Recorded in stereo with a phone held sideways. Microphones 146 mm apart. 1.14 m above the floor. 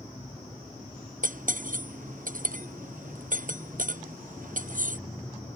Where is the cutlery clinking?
65° right (ahead or behind).